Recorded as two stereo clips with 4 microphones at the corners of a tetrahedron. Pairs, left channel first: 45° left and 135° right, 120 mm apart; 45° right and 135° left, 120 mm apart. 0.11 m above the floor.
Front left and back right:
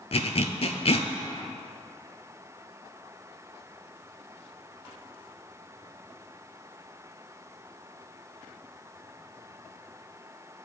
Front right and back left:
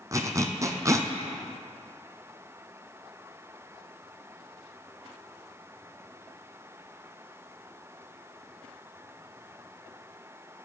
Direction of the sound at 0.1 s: 75° left.